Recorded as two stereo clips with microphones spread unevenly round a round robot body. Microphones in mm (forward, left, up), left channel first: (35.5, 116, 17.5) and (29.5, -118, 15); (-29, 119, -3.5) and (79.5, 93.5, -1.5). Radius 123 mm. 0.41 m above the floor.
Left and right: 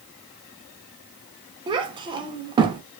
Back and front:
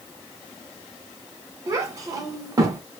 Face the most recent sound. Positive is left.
turn(degrees=-45)